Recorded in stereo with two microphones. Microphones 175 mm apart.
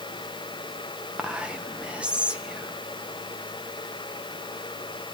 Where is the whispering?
5° right (ahead or behind), 0.7 m.